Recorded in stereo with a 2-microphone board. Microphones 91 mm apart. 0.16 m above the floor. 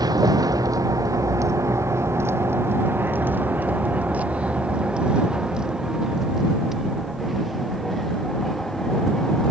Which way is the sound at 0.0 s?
45° right (ahead or behind).